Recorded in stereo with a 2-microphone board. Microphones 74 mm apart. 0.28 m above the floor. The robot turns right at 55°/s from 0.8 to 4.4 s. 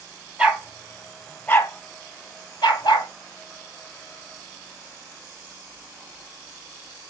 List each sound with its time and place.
0.4 s a dog barking: 15° right (ahead or behind), 1.5 m; by 3.1 s 70° left (ahead or behind), 1.5 m